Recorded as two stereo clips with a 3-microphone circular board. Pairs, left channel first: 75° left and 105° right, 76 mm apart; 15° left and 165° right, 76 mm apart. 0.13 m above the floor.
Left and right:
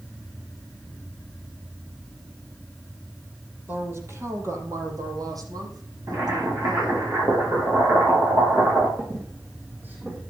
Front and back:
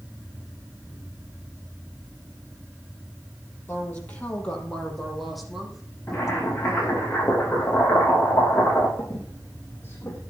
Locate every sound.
3.7 s a woman speaking: 45° right, 4 m; by 7.0 s 90° right, 6.5 m
6.1 s boiling: 50° right, 6.5 m
9.0 s a squeak: 40° right, 5.5 m